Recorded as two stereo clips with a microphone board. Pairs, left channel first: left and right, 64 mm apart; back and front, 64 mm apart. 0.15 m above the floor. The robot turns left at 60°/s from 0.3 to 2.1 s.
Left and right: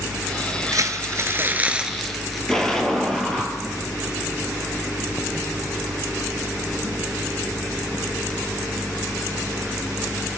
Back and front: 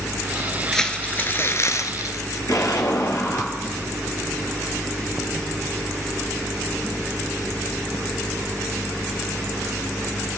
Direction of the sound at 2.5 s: 170° left.